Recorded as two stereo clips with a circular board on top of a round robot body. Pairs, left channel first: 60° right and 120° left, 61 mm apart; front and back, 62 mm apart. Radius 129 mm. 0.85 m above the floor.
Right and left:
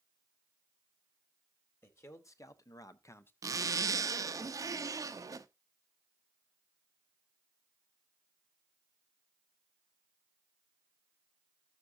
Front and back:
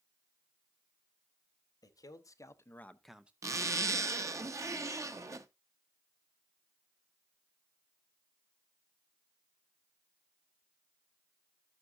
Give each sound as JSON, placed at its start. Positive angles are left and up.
{"t": 1.8, "sound": "a man speaking", "azimuth_deg": -15, "distance_m": 1.6}
{"t": 3.4, "sound": "a zipper", "azimuth_deg": 145, "distance_m": 0.8}